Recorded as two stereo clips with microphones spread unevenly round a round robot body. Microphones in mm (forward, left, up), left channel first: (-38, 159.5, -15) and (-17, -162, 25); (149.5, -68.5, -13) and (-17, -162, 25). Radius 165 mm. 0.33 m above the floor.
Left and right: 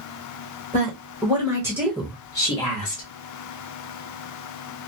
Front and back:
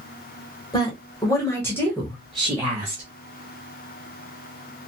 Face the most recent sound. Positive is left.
turn(degrees=120)